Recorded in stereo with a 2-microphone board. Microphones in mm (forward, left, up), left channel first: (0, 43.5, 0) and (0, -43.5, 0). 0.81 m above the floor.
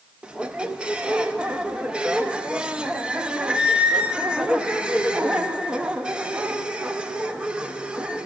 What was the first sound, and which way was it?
A squeak, 10° right (ahead or behind).